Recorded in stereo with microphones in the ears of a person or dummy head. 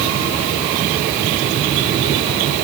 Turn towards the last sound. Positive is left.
No sound to turn to.